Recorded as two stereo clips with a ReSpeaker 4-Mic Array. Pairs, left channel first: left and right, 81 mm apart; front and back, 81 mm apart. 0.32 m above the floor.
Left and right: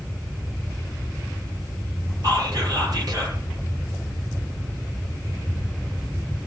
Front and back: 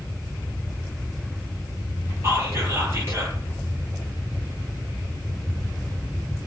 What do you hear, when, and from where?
2.2 s whispering: 125° right, 8.5 m